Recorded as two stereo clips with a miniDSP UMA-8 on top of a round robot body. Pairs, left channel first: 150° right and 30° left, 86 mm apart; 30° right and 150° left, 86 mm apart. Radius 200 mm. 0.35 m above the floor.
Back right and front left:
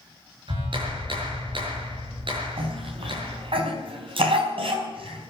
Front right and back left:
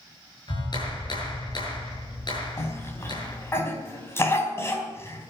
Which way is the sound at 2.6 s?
30° left.